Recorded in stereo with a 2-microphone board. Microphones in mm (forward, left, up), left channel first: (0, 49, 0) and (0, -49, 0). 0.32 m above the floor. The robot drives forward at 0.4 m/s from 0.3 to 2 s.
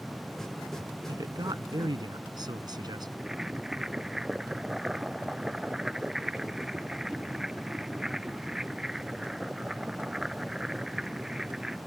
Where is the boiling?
5° right (ahead or behind).